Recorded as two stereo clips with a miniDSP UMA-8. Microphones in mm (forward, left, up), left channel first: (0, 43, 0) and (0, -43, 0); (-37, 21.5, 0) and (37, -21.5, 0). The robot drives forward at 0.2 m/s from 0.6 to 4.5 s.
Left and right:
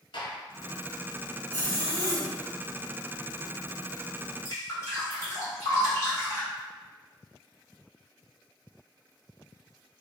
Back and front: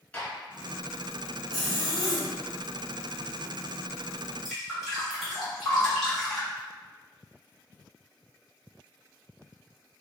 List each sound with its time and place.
0.1 s a gunshot: 75° left, 1.0 m
1.5 s a zipper: 110° right, 1.8 m; by 2.3 s 115° right, 1.9 m
4.5 s dripping: 60° left, 1.7 m